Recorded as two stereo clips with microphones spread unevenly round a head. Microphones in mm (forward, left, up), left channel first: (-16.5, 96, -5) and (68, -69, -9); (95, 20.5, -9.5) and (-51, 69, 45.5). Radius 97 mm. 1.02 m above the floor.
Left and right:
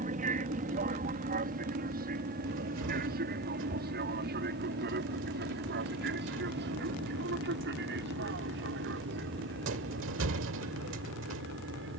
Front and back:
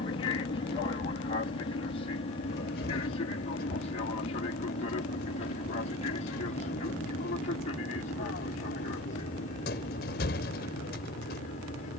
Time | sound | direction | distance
0.0 | an aircraft | 30° right | ?
2.5 | a cupboard door | 70° right | ?